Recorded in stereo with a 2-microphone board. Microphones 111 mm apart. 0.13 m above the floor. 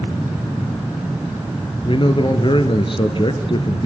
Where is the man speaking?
50° left (ahead or behind), 2 m.